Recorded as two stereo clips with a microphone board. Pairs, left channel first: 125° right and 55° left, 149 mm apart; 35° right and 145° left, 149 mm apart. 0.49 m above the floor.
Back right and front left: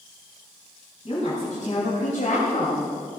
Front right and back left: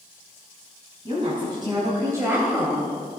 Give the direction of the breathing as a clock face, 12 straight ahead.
I don't hear breathing.